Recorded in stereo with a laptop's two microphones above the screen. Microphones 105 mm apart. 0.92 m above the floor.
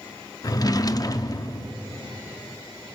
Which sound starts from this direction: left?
A drawer, at 0.4 s.